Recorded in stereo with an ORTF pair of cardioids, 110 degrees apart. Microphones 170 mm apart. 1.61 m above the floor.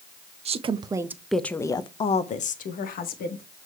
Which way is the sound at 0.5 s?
40° right.